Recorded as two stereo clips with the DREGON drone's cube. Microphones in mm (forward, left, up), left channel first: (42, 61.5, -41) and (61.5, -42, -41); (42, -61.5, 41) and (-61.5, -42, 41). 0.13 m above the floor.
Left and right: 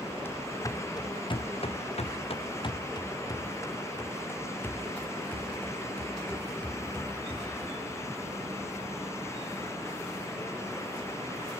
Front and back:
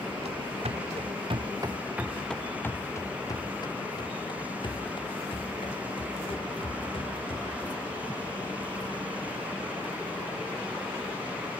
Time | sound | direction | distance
0.2 | running footsteps | 165° left | 1.9 m